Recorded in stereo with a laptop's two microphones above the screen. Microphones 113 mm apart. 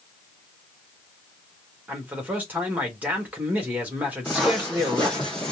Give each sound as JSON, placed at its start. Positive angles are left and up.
{"t": 1.9, "sound": "a man speaking", "side_deg": -15, "distance_m": 1.4}
{"t": 4.2, "sound": "footsteps", "side_deg": 0, "distance_m": 2.5}